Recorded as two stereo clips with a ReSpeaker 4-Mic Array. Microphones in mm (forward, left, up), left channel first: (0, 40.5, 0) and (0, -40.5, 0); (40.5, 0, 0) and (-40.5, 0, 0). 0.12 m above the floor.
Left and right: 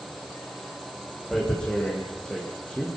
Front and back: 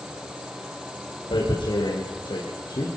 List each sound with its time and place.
1.3 s tearing paper: 10° left, 7 m